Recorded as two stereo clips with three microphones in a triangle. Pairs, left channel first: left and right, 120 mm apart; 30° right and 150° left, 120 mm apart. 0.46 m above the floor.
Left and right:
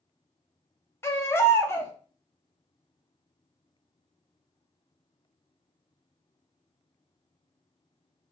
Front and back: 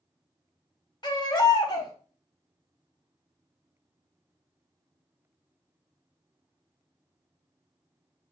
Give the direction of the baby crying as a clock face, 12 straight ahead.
11 o'clock.